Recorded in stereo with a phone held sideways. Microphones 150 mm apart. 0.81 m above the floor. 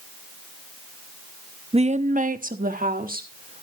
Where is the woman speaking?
40° right (ahead or behind), 0.6 m; by 3.6 s 70° right (ahead or behind), 2 m.